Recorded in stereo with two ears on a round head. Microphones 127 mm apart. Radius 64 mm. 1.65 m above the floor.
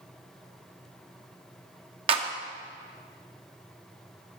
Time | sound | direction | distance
2.1 | a clap | 40° right (ahead or behind) | 1.1 m